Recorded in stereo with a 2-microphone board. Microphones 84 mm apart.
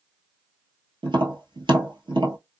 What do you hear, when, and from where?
1.0 s tapping: 80° right, 1.0 m